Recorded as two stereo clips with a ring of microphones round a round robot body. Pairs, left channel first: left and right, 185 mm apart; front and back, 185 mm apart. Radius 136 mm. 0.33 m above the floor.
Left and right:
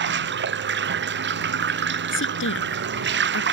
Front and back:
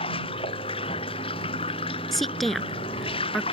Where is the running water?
70° right.